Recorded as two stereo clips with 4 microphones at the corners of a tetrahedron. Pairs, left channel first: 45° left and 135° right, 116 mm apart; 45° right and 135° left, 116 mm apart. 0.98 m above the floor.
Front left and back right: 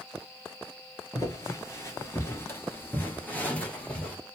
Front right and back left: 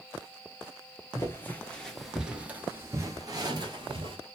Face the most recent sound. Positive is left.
turn(degrees=125)